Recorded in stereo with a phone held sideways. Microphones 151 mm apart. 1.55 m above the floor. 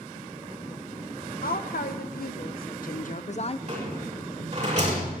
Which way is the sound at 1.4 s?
75° left (ahead or behind).